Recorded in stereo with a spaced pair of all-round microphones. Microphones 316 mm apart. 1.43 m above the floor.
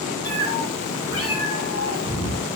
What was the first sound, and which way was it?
A cat meowing, 35° left (ahead or behind).